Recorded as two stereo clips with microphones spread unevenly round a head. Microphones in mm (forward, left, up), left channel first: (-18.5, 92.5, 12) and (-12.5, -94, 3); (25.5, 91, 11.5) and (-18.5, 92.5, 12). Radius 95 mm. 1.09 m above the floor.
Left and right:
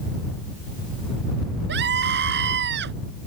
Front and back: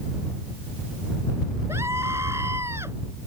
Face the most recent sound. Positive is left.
turn(degrees=-120)